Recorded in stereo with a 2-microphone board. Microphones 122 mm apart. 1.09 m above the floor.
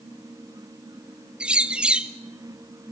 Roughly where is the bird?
Centre.